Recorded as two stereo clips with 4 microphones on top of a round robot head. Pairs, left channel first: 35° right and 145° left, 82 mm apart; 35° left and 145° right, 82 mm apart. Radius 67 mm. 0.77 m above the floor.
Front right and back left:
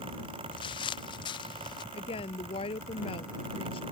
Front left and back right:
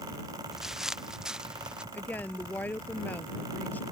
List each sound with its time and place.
0.5 s footsteps: 60° right; by 1.8 s 65° right
1.9 s a woman speaking: 35° right